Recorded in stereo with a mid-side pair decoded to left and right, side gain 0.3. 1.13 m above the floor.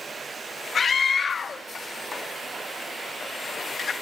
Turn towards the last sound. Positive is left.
turn(degrees=55)